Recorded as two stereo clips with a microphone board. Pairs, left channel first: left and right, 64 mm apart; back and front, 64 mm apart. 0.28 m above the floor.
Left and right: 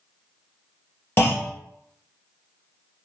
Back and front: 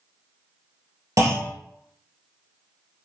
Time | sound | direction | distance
1.2 | a clunk | 35° left | 1.2 m